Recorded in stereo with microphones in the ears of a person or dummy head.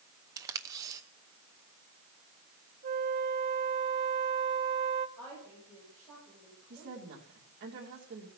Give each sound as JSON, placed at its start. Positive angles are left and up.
{"t": 0.4, "sound": "tape being pulled", "side_deg": -20, "distance_m": 0.8}
{"t": 2.8, "sound": "a flute", "side_deg": -50, "distance_m": 1.8}
{"t": 5.2, "sound": "a woman speaking", "side_deg": 10, "distance_m": 9.5}
{"t": 6.7, "sound": "a woman speaking", "side_deg": -50, "distance_m": 3.0}